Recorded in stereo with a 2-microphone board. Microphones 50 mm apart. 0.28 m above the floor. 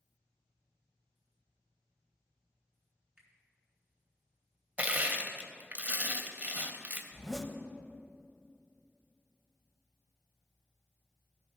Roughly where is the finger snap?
Centre.